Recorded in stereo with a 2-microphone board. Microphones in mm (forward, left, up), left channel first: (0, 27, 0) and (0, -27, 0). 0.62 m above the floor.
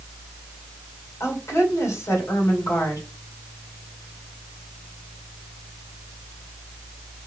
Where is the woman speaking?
70° left (ahead or behind), 2.5 m.